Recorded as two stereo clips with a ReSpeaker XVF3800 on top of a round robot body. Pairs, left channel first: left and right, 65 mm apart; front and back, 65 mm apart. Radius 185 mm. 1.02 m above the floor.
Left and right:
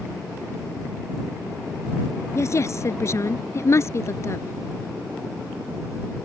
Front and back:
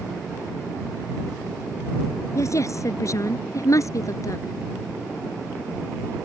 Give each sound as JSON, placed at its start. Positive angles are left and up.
{"t": 2.4, "sound": "a woman speaking", "azimuth_deg": 45}